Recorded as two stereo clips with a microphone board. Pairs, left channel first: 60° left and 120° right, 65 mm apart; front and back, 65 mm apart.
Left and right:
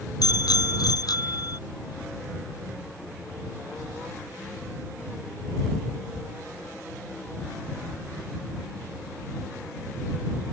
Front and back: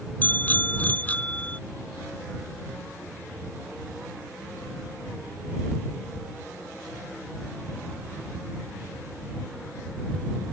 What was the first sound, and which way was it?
A bicycle bell, 60° left.